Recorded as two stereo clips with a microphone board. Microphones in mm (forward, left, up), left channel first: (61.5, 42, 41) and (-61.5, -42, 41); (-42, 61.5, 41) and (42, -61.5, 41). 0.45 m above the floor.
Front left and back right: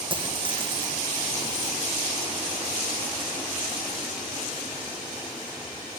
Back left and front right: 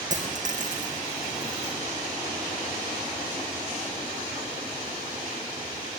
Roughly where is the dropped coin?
Right.